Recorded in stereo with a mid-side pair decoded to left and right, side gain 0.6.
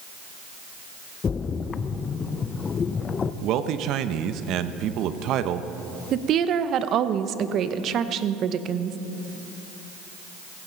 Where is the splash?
35° left, 0.6 m.